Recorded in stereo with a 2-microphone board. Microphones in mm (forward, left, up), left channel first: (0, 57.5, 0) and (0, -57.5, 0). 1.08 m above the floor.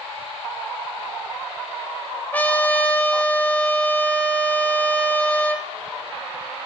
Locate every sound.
2.3 s a trumpet: 15° left (ahead or behind), 0.6 m